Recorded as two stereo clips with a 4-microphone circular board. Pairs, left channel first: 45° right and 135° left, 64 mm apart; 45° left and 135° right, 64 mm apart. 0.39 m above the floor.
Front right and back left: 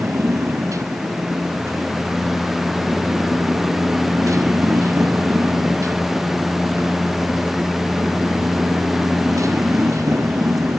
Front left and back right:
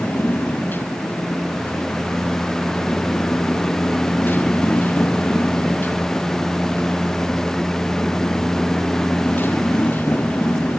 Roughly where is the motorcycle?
Left.